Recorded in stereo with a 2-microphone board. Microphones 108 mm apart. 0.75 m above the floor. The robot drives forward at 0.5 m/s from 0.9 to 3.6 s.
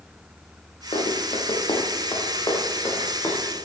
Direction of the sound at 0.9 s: 55° left (ahead or behind).